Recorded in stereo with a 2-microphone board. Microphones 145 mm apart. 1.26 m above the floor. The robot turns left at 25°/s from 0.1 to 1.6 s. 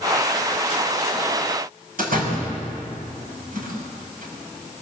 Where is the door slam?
75° right (ahead or behind), 5.5 m.